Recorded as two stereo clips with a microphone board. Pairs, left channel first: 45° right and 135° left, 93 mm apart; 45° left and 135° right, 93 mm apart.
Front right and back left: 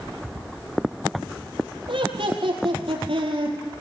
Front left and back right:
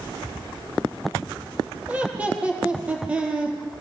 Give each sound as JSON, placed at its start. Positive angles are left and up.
{"t": 1.9, "sound": "laughter", "azimuth_deg": 150, "distance_m": 6.5}